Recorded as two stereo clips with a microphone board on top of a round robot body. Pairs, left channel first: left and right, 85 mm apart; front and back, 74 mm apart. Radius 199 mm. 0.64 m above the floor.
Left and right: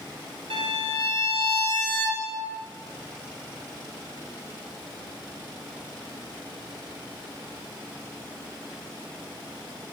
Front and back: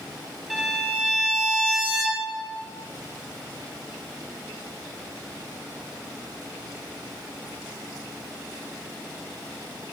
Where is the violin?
90° right, 2 m.